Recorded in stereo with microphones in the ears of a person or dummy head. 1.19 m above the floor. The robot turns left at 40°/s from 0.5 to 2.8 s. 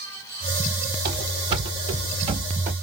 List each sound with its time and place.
1.1 s running footsteps: 30° right (ahead or behind), 1.4 m; by 2.7 s 15° right (ahead or behind), 1.2 m